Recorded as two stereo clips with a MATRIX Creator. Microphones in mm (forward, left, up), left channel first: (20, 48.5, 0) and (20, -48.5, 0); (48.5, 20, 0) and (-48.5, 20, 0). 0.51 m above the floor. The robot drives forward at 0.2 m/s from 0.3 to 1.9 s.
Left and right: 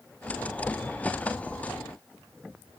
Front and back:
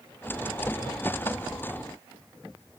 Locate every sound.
Only background noise.